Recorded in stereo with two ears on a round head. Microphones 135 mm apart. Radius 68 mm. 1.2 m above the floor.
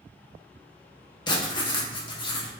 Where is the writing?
30° left (ahead or behind), 0.7 m.